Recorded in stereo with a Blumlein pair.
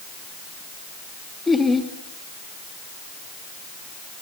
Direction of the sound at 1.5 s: 10° left.